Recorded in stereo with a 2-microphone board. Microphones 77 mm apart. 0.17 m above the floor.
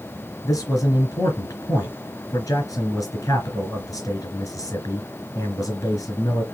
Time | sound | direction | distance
0.4 | a man speaking | 50° left (ahead or behind) | 2.5 m